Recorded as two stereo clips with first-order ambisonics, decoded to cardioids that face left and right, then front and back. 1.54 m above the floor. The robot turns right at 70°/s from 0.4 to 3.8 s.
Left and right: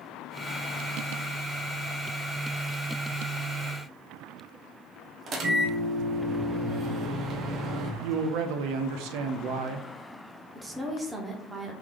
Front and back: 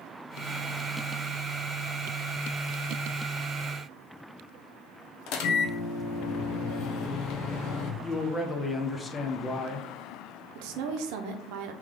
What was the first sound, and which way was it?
A microwave, 30° right.